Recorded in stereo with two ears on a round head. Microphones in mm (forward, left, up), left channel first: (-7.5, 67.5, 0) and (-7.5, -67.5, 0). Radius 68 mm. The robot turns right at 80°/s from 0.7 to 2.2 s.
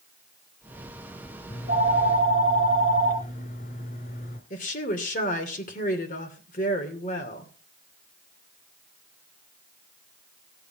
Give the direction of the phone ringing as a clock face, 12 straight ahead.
10 o'clock.